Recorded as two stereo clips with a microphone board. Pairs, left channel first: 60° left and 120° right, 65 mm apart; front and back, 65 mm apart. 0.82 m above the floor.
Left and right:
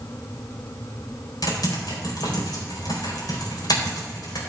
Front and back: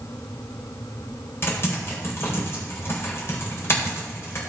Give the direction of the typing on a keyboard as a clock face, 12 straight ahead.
10 o'clock.